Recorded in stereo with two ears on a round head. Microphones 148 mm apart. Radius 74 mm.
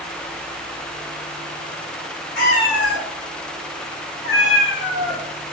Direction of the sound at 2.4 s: 65° left (ahead or behind).